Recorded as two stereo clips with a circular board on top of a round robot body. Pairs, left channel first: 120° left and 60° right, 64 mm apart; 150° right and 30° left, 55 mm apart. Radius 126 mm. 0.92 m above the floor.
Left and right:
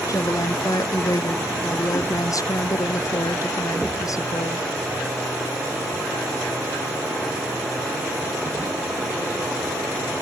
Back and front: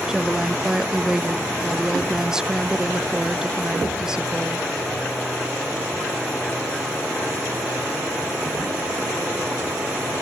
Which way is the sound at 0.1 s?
105° left.